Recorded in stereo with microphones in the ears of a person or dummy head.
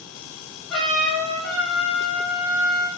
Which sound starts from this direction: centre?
A trumpet, at 0.7 s.